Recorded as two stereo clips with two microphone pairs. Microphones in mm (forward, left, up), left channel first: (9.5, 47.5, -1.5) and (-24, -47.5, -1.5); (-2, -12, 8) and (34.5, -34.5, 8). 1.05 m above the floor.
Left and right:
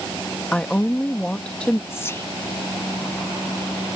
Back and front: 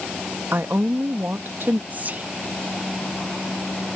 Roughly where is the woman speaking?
Ahead.